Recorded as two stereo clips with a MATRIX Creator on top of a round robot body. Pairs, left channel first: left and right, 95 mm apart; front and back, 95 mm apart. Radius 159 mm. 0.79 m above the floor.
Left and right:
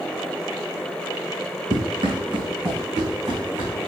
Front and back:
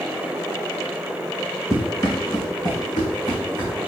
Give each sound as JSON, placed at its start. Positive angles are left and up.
{"t": 1.7, "sound": "running footsteps", "azimuth_deg": -55, "distance_m": 3.0}